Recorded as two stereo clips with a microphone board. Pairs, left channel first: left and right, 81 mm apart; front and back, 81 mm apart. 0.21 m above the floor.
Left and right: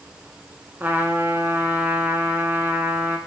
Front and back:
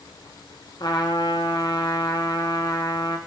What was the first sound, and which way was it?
A trumpet, 25° right.